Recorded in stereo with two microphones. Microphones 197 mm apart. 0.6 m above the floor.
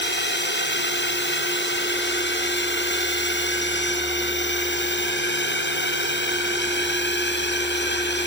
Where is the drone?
65° left (ahead or behind).